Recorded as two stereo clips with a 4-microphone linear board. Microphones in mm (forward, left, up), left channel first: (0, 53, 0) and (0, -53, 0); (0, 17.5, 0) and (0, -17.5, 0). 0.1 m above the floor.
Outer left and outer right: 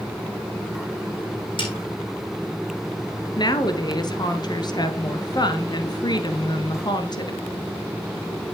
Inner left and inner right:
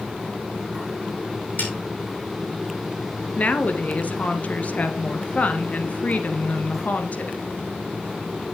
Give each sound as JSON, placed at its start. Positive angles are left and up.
{"t": 1.6, "sound": "a snare drum", "side_deg": 50, "distance_m": 6.0}
{"t": 3.4, "sound": "a woman speaking", "side_deg": 45, "distance_m": 1.7}